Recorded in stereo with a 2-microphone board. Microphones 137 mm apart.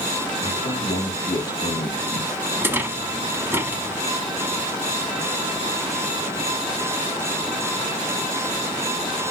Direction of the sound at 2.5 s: 15° right (ahead or behind).